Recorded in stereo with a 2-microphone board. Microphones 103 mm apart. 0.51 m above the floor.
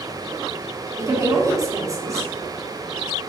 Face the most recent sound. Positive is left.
turn(degrees=-30)  # may be behind; listen again after turning